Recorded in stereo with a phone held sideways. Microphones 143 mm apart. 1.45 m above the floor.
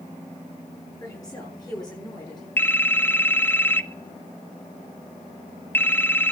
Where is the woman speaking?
25° left (ahead or behind), 9 m; by 2.5 s 30° left (ahead or behind), 10 m.